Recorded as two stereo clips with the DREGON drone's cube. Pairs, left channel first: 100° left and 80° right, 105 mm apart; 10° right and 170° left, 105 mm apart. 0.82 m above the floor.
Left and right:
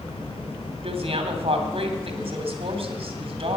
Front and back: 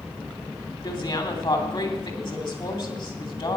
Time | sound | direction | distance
0.8 | a woman speaking | 55° right | 2.5 m